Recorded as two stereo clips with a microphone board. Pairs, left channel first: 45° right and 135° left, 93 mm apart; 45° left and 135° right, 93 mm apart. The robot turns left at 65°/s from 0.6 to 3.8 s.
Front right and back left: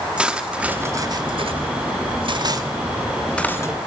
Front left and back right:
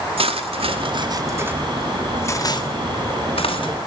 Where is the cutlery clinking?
145° right, 2 m; by 3.8 s 10° left, 2 m.